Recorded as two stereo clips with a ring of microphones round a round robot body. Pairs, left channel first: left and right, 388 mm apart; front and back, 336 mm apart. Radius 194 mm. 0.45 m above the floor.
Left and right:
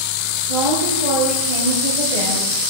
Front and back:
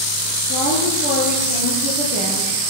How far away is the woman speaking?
About 8.5 m.